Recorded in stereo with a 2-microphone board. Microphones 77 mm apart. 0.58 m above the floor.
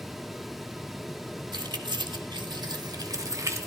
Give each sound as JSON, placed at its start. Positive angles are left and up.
{"t": 1.5, "sound": "keys jangling", "side_deg": -70, "distance_m": 1.6}